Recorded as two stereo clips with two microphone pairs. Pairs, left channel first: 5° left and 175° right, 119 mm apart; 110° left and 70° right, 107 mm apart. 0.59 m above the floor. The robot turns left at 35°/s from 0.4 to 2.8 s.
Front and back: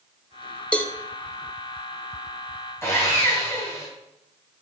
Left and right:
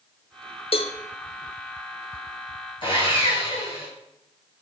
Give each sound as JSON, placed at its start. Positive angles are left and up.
{"t": 0.7, "sound": "a cowbell", "azimuth_deg": 80, "distance_m": 0.7}
{"t": 2.8, "sound": "sawing", "azimuth_deg": 70, "distance_m": 3.0}